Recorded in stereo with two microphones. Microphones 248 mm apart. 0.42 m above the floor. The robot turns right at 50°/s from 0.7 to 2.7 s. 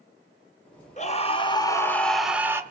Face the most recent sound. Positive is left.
turn(degrees=-155)